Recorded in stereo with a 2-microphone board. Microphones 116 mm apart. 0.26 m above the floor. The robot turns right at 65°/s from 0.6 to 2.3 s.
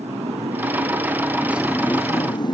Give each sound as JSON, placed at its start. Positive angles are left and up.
{"t": 0.0, "sound": "a motorcycle", "azimuth_deg": -70}